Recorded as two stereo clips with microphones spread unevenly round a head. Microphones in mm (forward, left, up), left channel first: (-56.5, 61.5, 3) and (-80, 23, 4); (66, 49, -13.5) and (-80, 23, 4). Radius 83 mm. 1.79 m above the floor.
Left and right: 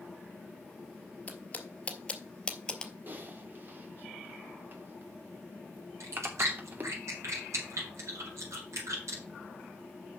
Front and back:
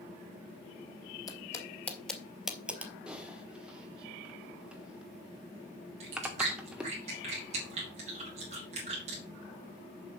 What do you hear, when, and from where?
1.3 s footsteps: 60° left, 1.9 m; by 2.9 s 125° left, 2 m
3.1 s typing on a keyboard: 95° right, 1.1 m
6.0 s chewing: 115° right, 3 m